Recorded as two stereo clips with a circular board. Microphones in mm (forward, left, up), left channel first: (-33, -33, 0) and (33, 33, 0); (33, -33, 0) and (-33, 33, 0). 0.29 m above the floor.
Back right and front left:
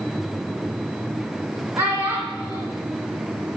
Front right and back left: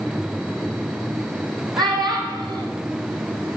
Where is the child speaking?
105° left, 1.3 m.